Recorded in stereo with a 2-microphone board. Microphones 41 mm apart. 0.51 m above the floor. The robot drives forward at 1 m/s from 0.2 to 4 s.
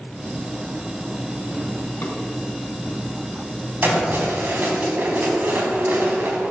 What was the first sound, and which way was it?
A drawer, 65° left (ahead or behind).